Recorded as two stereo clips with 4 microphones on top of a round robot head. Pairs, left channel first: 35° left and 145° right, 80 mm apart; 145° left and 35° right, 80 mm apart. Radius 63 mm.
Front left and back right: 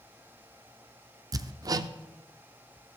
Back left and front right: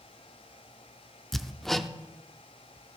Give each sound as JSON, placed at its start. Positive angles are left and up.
{"t": 1.3, "sound": "hammering", "azimuth_deg": -130, "distance_m": 0.6}